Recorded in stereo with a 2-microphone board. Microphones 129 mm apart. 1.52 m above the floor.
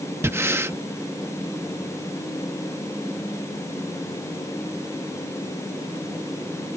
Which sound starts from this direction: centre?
Breathing, at 0.2 s.